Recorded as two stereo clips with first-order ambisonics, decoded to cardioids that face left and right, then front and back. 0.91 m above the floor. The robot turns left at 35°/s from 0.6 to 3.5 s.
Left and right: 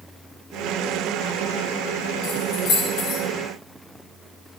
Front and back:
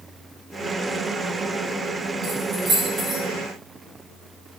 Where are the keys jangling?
130° left, 3.5 m; by 3.2 s 95° left, 3.5 m.